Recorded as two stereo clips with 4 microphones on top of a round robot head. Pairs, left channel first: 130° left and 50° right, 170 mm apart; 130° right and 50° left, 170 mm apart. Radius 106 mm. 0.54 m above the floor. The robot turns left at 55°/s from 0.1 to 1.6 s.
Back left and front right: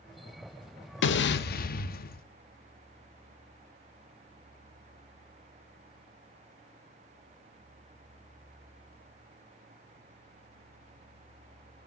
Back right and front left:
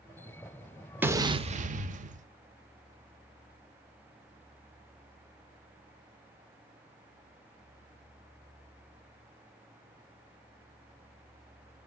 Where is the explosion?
130° left, 0.6 m; by 2.3 s 95° left, 0.6 m.